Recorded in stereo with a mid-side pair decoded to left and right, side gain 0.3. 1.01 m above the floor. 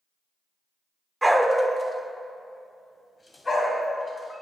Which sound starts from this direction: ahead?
A dog barking, at 1.2 s.